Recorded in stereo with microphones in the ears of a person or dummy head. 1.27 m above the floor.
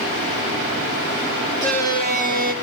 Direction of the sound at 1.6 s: 45° right (ahead or behind).